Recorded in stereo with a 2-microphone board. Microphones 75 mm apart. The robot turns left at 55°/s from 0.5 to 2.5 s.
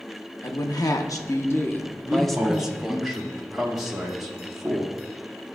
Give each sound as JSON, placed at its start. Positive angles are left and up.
{"t": 0.4, "sound": "a woman speaking", "azimuth_deg": 100, "distance_m": 0.7}
{"t": 2.1, "sound": "a man speaking", "side_deg": -15, "distance_m": 1.0}